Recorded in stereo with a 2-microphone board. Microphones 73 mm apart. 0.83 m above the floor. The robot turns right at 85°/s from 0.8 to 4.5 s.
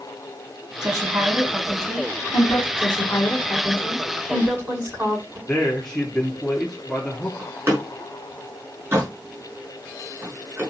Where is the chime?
No chime in this recording.